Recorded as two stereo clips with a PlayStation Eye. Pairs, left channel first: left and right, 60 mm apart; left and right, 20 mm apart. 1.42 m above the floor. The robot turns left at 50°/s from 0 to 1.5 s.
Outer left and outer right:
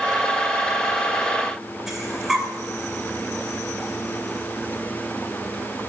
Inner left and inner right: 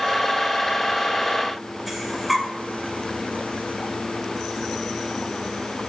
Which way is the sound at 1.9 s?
5° right (ahead or behind).